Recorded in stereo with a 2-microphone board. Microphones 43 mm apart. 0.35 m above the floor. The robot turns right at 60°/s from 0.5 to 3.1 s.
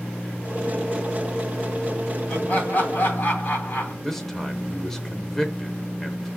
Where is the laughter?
30° left, 2 m; by 3.9 s 80° left, 2 m.